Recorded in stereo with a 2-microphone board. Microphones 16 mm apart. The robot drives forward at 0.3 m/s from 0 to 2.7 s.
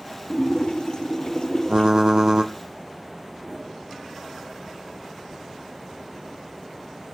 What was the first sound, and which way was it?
A splash, 65° left (ahead or behind).